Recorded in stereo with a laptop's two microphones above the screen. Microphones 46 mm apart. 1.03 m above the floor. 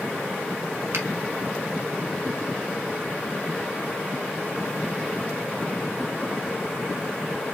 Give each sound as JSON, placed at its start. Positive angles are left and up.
{"t": 0.9, "sound": "a finger snap", "side_deg": -65, "distance_m": 1.1}